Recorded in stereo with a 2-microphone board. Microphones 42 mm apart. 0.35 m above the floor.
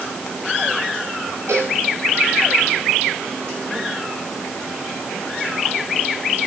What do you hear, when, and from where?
1.5 s a cowbell: 80° right, 8.5 m